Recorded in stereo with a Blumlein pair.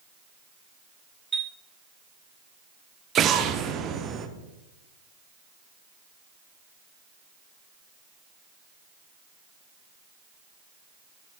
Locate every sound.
1.3 s a chime: 15° right, 1.2 m
3.1 s an explosion: 25° right, 0.9 m